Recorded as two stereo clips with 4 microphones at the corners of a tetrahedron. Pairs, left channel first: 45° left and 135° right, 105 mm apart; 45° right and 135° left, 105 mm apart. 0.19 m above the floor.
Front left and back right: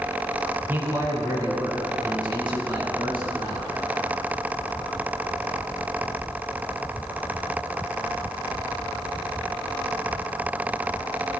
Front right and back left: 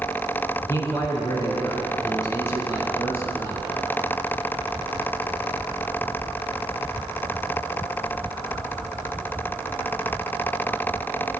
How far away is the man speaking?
About 1.3 m.